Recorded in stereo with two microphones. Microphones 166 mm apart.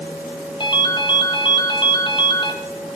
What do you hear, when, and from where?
0.6 s a ringtone: 30° left (ahead or behind), 1.7 m